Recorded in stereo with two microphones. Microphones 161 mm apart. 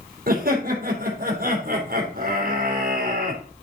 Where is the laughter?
70° right (ahead or behind), 3 m.